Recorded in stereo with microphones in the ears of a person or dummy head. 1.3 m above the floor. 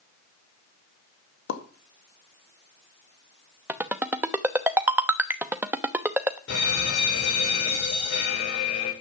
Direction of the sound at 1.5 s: 65° left (ahead or behind).